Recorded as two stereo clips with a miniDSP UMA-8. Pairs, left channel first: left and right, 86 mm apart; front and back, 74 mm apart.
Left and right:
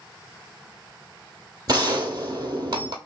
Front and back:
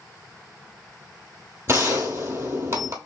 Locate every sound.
1.7 s a gunshot: 125° right, 0.9 m